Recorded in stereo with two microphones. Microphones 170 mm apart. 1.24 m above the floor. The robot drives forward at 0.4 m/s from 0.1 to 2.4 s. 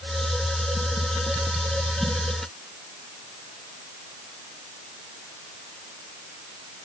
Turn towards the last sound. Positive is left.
No sound to turn to.